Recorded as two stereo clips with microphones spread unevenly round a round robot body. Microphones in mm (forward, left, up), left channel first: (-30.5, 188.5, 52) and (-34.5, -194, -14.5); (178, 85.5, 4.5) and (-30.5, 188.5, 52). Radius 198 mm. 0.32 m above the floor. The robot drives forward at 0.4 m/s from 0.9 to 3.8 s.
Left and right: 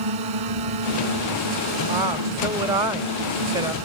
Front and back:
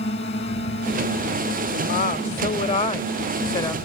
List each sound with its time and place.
0.0 s a drone: 90° right; by 3.9 s 95° right
1.9 s a woman speaking: 25° right; by 3.8 s 50° right